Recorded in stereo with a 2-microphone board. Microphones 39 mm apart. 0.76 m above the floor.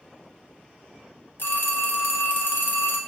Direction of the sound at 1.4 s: 65° left (ahead or behind).